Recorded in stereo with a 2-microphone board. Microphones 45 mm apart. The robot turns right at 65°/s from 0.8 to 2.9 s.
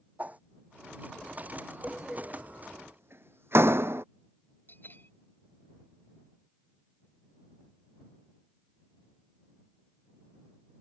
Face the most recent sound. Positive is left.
turn(degrees=50)  # may be behind; listen again after turning